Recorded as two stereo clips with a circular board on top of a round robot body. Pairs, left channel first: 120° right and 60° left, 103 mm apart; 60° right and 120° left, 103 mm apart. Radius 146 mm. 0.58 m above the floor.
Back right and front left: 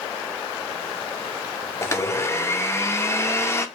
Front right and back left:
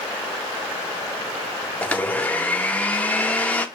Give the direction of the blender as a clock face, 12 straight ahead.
4 o'clock.